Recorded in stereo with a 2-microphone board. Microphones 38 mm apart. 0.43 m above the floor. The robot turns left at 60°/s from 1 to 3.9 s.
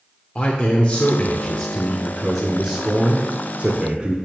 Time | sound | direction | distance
0.3 | a man speaking | 25° left (ahead or behind) | 0.8 m